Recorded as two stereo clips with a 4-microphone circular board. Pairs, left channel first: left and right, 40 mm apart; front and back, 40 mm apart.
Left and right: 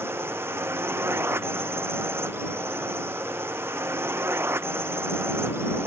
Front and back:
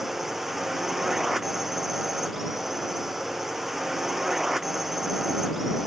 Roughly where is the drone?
Right.